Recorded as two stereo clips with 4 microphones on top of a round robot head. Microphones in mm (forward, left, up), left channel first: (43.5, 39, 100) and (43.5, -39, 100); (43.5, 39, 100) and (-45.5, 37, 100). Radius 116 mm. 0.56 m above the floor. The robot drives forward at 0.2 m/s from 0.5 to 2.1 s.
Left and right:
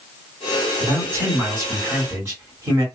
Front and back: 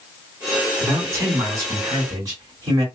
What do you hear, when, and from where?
0.8 s a man speaking: 130° right, 1.6 m; by 2.9 s 140° right, 1.8 m